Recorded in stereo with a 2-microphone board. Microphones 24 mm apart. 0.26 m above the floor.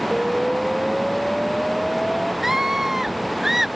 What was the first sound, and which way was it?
An explosion, 20° left (ahead or behind).